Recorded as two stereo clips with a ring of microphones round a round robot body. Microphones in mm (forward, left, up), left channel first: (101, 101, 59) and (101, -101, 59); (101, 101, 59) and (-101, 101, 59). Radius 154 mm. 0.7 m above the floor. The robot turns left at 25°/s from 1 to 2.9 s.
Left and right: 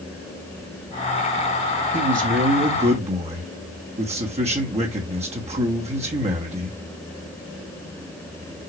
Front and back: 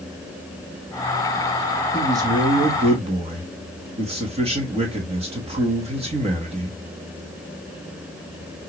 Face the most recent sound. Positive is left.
turn(degrees=-135)